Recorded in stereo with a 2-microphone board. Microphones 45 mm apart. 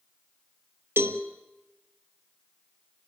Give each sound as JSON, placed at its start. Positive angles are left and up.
{"t": 1.0, "sound": "a cowbell", "side_deg": -65, "distance_m": 1.1}